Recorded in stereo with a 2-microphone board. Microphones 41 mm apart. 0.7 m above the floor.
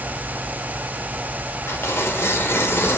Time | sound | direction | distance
1.7 | tearing paper | 75° left (ahead or behind) | 1.5 m